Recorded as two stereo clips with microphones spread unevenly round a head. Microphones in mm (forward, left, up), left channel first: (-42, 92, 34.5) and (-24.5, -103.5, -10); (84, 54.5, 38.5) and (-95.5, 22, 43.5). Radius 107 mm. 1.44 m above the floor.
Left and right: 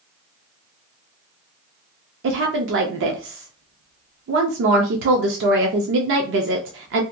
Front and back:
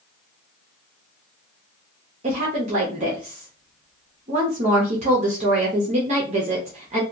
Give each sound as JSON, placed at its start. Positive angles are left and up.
{"t": 2.2, "sound": "a woman speaking", "azimuth_deg": -110, "distance_m": 0.5}